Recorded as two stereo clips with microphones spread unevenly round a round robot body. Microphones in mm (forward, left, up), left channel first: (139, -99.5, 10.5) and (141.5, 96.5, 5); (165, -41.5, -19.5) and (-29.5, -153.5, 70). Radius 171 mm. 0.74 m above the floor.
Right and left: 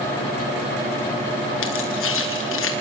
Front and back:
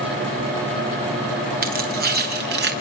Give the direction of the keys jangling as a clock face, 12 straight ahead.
3 o'clock.